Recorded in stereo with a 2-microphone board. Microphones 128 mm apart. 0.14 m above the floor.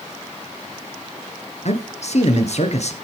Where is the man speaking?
60° left (ahead or behind), 2 m.